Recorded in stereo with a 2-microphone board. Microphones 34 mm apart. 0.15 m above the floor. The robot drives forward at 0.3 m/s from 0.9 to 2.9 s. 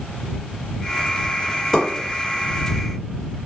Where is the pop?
15° left (ahead or behind), 1.7 m.